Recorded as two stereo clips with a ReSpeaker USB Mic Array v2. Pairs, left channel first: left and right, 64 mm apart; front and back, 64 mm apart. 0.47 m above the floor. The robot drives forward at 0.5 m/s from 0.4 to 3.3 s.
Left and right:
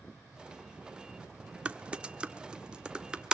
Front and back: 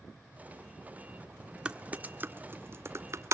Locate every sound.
1.6 s typing on a keyboard: 130° right, 1.0 m; by 3.3 s 165° right, 1.5 m